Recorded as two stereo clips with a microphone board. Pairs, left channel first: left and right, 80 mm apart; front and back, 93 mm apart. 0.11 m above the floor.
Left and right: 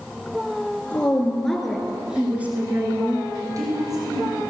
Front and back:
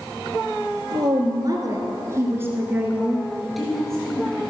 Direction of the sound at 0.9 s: 160° left.